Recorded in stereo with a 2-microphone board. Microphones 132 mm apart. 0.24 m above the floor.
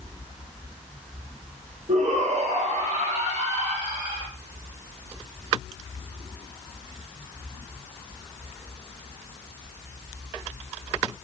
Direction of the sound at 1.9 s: 75° right (ahead or behind).